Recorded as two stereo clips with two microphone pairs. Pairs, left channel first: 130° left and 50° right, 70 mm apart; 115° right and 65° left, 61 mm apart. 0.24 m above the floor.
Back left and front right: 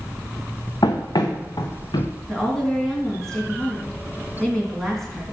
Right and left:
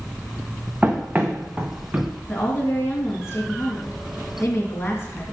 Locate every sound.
0.8 s running footsteps: 130° left, 1.2 m
2.3 s a woman speaking: 150° right, 2.5 m